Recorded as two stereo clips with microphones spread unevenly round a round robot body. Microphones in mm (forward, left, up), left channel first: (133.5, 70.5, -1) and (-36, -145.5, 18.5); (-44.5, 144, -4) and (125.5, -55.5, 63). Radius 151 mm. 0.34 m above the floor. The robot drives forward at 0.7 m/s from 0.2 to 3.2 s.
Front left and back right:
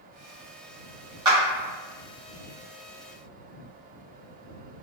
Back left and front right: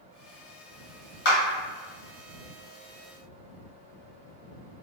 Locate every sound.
1.2 s a clap: 155° left, 1.5 m